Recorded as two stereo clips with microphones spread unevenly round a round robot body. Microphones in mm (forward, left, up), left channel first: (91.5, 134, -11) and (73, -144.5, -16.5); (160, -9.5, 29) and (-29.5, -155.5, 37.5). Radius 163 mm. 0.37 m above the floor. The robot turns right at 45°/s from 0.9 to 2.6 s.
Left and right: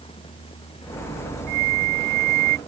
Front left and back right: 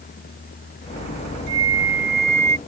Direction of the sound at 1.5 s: 130° right.